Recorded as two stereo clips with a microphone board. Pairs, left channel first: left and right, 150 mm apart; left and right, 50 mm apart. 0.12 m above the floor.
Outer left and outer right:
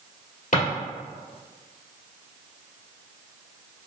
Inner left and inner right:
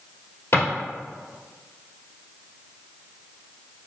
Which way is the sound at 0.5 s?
60° left (ahead or behind).